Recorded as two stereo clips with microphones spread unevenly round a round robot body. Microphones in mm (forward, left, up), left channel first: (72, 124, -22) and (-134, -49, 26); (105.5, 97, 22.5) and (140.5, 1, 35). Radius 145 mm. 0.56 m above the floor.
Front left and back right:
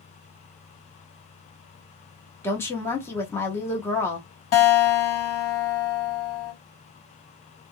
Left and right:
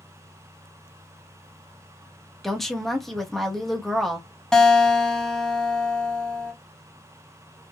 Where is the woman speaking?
50° left, 0.8 m.